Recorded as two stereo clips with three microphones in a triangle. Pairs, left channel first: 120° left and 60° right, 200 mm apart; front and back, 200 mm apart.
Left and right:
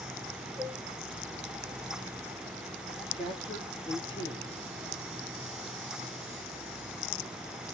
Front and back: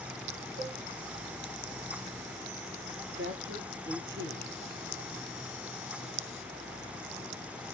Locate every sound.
0.6 s a cowbell: straight behind, 8 m
3.1 s a man speaking: 175° right, 4 m